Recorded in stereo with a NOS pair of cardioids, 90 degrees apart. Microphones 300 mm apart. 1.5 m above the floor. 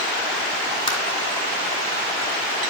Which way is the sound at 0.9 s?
20° left.